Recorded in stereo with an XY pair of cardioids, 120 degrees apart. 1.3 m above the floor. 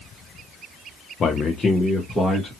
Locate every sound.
1.2 s a man speaking: 35° left, 0.7 m; by 2.5 s 10° left, 1.6 m